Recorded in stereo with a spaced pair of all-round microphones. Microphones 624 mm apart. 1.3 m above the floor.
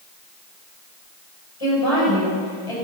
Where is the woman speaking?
55° left (ahead or behind), 7.5 m.